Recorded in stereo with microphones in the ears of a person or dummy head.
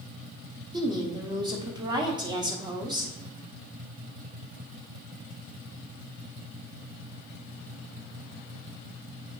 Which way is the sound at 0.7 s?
20° right (ahead or behind).